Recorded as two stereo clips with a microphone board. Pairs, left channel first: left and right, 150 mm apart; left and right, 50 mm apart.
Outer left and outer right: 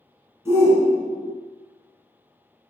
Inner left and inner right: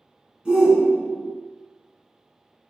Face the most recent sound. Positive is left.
turn(degrees=-20)  # may be behind; listen again after turning